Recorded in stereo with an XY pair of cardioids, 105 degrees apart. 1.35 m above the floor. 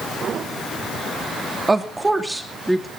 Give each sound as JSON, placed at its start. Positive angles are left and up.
{"t": 1.7, "sound": "a woman speaking", "azimuth_deg": -20, "distance_m": 3.0}